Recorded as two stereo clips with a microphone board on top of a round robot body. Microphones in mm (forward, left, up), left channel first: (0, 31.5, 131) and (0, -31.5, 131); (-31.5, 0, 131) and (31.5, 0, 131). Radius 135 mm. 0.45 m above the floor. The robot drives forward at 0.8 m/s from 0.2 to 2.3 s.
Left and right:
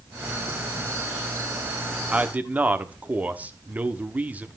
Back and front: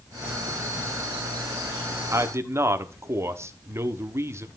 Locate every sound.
2.1 s a man speaking: 25° right, 1.2 m; by 4.5 s 30° right, 1.1 m